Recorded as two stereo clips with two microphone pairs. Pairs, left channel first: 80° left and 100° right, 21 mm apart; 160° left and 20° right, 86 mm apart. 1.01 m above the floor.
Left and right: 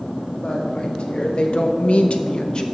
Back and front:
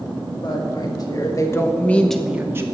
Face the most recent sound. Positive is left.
turn(degrees=35)